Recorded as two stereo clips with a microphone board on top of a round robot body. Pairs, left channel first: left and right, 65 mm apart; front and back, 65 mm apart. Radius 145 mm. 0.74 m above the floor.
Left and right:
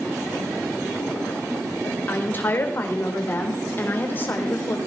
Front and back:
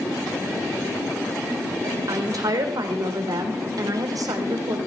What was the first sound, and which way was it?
A woman speaking, 150° left.